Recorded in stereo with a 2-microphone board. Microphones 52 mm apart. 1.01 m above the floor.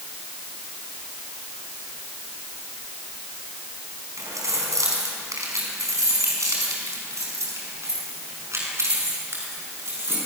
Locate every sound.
4.2 s keys jangling: 80° right, 6 m; by 10.2 s 50° right (ahead or behind), 9 m